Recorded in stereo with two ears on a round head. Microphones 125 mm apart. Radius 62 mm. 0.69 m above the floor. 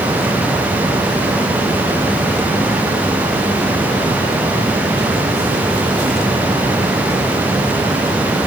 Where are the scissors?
No scissors in this recording.